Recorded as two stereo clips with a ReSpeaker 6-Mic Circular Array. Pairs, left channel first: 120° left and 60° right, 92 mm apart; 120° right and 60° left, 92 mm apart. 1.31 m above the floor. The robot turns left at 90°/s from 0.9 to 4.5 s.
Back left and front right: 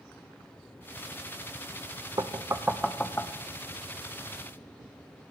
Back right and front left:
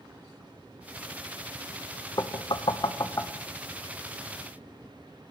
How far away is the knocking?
About 0.5 m.